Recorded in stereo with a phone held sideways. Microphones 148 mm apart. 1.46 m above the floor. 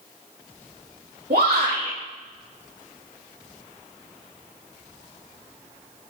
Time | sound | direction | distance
1.3 | a shout | 80° right | 2 m